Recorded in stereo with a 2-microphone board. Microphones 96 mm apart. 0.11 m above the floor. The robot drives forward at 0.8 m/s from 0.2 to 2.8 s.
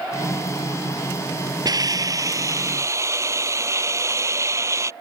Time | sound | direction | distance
1.6 | a hiss | 45° right (ahead or behind) | ?